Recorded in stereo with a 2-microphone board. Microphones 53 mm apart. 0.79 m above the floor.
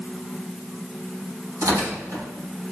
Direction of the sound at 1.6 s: 90° right.